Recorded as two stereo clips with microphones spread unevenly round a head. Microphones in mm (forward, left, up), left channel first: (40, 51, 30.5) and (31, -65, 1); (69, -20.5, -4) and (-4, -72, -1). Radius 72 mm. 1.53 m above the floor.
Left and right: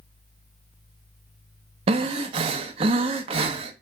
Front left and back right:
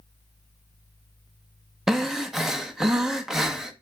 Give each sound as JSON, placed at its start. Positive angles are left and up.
{"t": 1.9, "sound": "breathing", "azimuth_deg": -65, "distance_m": 1.0}